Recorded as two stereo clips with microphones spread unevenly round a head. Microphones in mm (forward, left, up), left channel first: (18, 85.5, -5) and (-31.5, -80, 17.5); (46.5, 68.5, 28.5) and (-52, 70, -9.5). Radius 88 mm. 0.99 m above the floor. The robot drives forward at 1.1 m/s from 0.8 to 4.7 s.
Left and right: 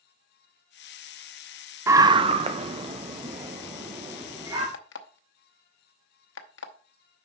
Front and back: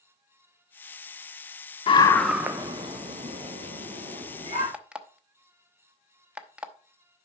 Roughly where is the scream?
Ahead right.